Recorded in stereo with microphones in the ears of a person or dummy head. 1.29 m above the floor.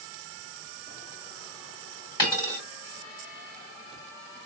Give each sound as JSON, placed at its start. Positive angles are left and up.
{"t": 2.2, "sound": "a dropped coin", "side_deg": 30, "distance_m": 2.0}